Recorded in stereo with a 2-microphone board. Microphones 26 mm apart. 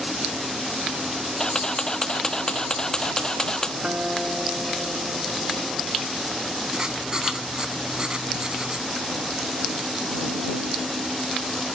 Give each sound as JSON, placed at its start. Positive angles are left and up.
{"t": 1.4, "sound": "a camera shutter", "side_deg": 30}
{"t": 3.8, "sound": "a guitar", "side_deg": -35}
{"t": 6.7, "sound": "writing", "side_deg": -30}